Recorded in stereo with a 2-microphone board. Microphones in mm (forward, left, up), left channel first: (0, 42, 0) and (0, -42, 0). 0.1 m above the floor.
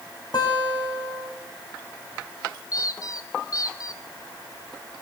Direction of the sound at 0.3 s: 55° left (ahead or behind).